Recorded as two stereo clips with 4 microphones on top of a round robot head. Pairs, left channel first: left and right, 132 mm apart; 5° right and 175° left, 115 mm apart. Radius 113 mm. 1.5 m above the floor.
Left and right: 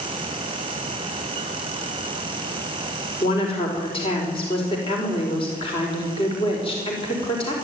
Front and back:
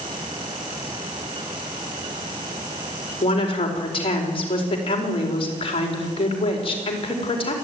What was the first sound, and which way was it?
A woman speaking, 35° left.